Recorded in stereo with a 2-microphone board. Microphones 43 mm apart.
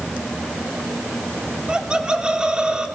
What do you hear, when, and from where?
1.7 s laughter: 20° right (ahead or behind), 3 m